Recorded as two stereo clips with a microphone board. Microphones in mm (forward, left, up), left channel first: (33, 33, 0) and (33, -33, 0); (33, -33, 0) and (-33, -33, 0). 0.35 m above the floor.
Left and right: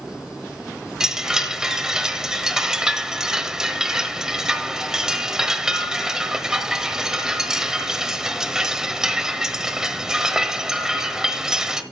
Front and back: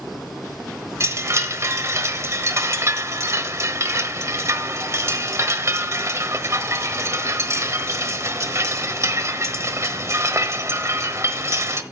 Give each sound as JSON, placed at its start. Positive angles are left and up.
{"t": 1.0, "sound": "a chime", "azimuth_deg": -170, "distance_m": 1.1}